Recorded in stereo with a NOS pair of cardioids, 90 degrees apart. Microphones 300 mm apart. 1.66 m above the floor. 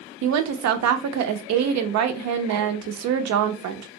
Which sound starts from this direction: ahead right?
A woman speaking, at 0.2 s.